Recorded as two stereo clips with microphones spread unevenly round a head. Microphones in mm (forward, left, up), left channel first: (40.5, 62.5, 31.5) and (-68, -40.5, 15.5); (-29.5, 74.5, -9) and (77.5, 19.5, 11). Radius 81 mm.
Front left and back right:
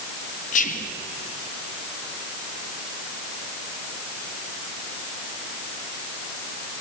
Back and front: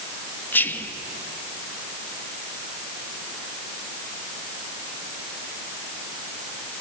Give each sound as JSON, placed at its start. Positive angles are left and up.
{"t": 0.5, "sound": "whispering", "azimuth_deg": 80, "distance_m": 1.2}